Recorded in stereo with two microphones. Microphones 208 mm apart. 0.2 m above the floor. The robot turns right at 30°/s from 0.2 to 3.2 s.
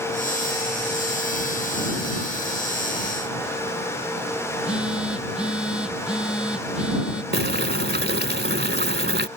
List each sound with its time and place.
4.5 s a phone buzzing: 5° right (ahead or behind)
7.3 s boiling: 55° right (ahead or behind)